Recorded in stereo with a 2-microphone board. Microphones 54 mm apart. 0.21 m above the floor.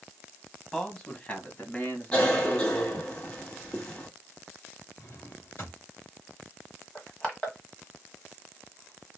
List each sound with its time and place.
0.7 s a man speaking: 10° left (ahead or behind), 1.2 m; by 3.1 s 45° left (ahead or behind), 2 m
2.1 s a cough: 20° left (ahead or behind), 1.7 m
5.0 s a drawer: 40° left (ahead or behind), 2 m
7.0 s crushing: 20° left (ahead or behind), 1.5 m